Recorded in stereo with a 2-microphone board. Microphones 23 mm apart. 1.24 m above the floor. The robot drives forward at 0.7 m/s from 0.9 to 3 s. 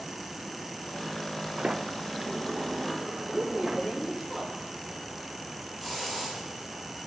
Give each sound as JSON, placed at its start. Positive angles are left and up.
{"t": 1.6, "sound": "a sliding door", "side_deg": -45, "distance_m": 0.6}
{"t": 3.2, "sound": "a woman speaking", "side_deg": 20, "distance_m": 3.0}
{"t": 5.8, "sound": "a hiss", "side_deg": 5, "distance_m": 4.5}